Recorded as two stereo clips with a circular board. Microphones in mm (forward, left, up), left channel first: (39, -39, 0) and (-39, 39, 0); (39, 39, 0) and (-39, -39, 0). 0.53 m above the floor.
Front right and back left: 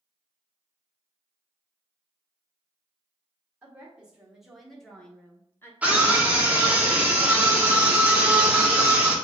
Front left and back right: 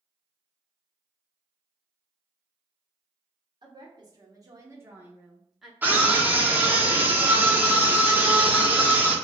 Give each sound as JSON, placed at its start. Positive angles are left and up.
{"t": 3.6, "sound": "a woman speaking", "azimuth_deg": -155, "distance_m": 1.5}
{"t": 5.8, "sound": "a scream", "azimuth_deg": -175, "distance_m": 1.2}